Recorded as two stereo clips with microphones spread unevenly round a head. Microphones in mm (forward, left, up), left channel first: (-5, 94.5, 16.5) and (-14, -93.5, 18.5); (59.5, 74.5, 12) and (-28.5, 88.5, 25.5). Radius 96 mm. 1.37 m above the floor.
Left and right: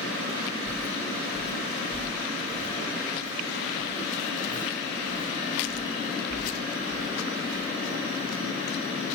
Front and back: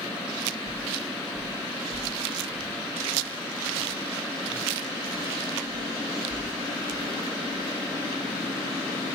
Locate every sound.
0.7 s footsteps: 70° right, 6 m; by 7.6 s 85° right, 15 m